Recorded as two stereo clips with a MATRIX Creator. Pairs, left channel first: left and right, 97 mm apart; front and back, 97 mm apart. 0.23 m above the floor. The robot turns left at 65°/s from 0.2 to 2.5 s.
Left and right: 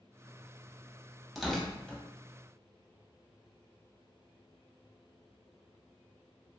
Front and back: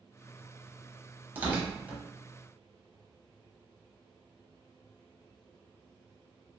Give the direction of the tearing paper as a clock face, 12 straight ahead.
6 o'clock.